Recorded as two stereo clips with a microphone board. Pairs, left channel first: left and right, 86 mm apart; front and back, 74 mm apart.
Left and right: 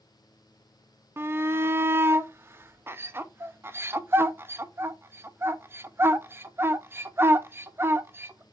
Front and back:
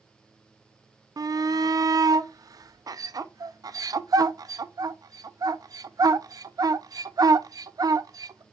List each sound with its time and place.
1.2 s a shout: 150° right, 0.6 m